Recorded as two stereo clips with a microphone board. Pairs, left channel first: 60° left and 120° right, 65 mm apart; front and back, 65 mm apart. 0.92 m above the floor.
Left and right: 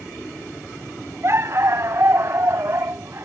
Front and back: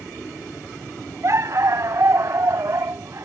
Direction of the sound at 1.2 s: 155° right.